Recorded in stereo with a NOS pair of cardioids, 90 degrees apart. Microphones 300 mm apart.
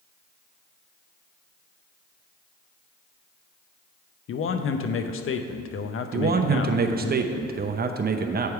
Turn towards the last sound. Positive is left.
turn(degrees=-30)